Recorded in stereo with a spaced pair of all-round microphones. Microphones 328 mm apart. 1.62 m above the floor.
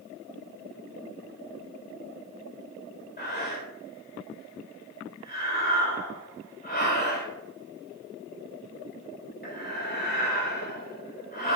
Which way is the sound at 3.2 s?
30° left (ahead or behind).